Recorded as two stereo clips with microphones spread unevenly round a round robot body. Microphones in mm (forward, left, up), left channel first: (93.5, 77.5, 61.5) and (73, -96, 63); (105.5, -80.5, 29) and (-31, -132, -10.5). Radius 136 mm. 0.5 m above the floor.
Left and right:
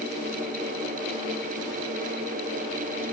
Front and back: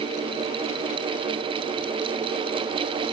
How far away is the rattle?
No rattle in this recording.